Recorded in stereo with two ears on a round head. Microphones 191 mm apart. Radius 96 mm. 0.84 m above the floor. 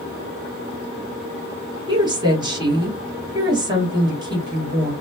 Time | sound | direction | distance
1.9 | a woman speaking | 20° right (ahead or behind) | 1.2 m